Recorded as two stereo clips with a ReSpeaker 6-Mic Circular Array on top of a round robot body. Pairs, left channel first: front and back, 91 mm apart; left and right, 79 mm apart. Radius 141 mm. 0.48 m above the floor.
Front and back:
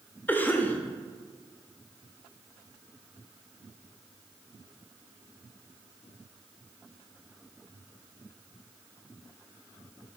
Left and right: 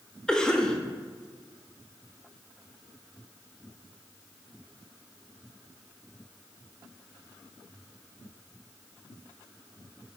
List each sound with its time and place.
0.3 s a cough: 25° left, 0.9 m